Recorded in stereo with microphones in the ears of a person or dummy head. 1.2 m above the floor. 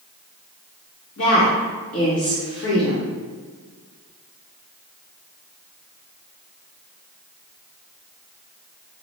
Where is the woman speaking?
75° left (ahead or behind), 1.5 m.